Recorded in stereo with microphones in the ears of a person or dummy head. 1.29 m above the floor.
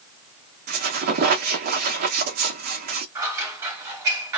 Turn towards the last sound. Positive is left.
turn(degrees=-15)  # may be behind; listen again after turning